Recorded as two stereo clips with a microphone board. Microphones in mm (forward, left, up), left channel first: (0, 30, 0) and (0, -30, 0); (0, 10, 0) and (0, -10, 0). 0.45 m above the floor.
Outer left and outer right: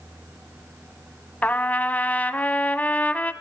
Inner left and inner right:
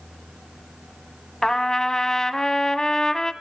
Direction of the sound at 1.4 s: 25° left (ahead or behind).